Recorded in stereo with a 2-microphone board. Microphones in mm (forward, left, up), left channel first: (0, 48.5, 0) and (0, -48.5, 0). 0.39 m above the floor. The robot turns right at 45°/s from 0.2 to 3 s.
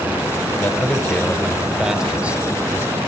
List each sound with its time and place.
0.5 s a man speaking: 20° left (ahead or behind), 0.9 m; by 3.0 s 25° right (ahead or behind), 0.9 m